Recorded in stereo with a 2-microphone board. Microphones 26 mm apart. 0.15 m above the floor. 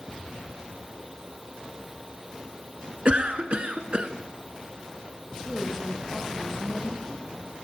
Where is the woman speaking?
5° left (ahead or behind), 5.5 m.